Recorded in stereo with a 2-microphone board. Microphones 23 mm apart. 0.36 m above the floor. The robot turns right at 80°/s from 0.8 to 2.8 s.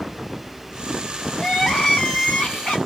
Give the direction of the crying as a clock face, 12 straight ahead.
12 o'clock.